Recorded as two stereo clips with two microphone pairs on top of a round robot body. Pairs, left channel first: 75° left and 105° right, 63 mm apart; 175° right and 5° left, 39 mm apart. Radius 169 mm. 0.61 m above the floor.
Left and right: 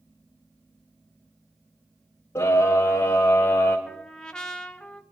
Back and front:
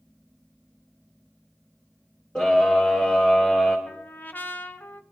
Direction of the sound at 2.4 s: 125° left.